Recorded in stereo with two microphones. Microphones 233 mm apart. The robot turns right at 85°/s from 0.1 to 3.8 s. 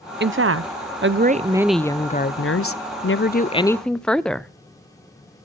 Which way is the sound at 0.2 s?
130° right.